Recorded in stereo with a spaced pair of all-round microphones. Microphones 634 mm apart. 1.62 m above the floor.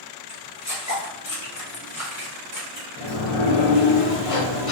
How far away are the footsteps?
About 1.9 m.